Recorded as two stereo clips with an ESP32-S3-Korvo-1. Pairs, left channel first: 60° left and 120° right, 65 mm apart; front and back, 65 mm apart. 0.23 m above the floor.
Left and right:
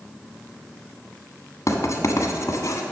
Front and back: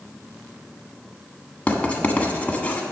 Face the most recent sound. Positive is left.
turn(degrees=65)